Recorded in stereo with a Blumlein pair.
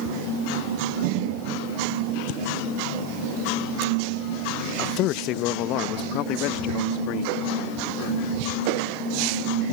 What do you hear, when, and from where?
4.8 s a man speaking: 35° left; by 7.5 s 40° left